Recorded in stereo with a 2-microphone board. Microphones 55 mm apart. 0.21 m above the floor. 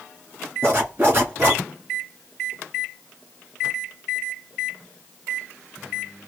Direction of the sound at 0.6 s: 40° right (ahead or behind).